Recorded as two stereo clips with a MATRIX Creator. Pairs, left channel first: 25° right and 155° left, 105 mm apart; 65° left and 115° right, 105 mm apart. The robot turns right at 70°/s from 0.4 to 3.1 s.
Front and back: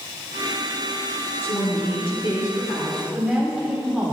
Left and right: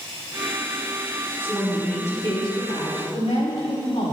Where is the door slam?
I don't hear a door slam.